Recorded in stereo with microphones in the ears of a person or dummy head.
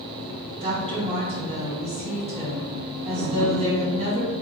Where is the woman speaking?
35° right (ahead or behind), 1.7 m.